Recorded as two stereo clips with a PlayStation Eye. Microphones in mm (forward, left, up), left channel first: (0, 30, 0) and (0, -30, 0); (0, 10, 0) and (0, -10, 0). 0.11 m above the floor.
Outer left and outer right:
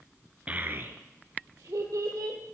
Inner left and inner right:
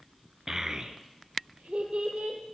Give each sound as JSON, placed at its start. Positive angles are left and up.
{"t": 0.5, "sound": "a child speaking", "side_deg": -25, "distance_m": 0.7}